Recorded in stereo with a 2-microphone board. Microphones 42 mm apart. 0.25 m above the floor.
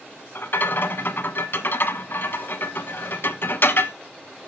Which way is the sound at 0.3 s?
60° left (ahead or behind).